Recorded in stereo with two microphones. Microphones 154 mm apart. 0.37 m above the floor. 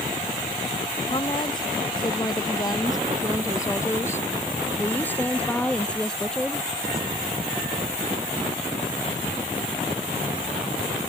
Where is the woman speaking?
30° left (ahead or behind); by 6.7 s centre (ahead or behind).